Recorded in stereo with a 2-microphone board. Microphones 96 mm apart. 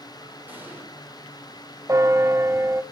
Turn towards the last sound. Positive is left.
turn(degrees=-30)  # may be behind; listen again after turning